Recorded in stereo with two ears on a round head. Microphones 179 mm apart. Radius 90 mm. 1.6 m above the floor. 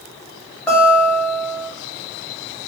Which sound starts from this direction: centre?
A guitar, at 0.7 s.